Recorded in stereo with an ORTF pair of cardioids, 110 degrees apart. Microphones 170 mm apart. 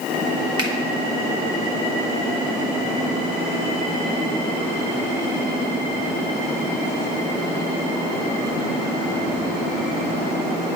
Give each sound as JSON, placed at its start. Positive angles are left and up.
{"t": 0.6, "sound": "a finger snap", "azimuth_deg": -25, "distance_m": 1.9}